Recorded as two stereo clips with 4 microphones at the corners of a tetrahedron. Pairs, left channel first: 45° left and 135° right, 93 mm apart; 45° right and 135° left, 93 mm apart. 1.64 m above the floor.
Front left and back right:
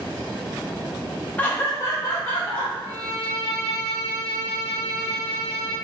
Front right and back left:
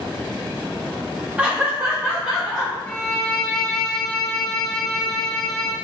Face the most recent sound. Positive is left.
turn(degrees=-115)